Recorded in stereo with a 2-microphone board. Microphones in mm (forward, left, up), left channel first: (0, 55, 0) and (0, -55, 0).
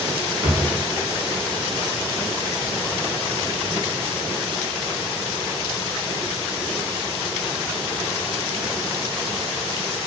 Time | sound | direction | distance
0.4 | a drawer | 40° right (ahead or behind) | 0.5 m